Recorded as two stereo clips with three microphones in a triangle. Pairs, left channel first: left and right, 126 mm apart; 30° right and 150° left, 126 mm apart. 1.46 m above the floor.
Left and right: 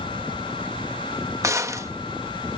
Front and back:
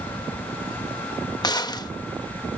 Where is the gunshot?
45° right.